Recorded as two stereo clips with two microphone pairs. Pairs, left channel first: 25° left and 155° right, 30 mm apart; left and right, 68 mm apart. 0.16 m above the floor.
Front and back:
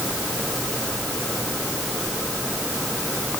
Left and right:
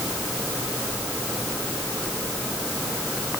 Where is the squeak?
I don't hear a squeak.